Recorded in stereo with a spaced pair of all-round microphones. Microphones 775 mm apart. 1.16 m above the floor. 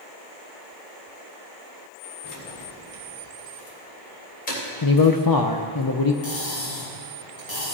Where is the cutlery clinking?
55° left (ahead or behind), 4.5 m.